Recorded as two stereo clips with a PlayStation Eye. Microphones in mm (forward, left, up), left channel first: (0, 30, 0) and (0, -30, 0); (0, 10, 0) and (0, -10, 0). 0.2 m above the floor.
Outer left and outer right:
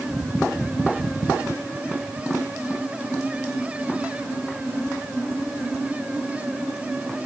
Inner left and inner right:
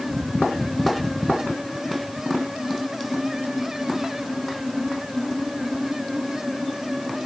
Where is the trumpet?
I don't hear a trumpet.